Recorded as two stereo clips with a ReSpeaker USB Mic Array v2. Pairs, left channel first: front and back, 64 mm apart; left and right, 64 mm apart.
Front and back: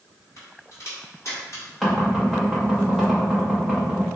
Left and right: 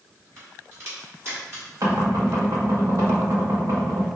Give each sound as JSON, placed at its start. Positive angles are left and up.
{"t": 0.4, "sound": "a crack", "azimuth_deg": -40, "distance_m": 2.0}
{"t": 1.8, "sound": "knocking", "azimuth_deg": -85, "distance_m": 1.3}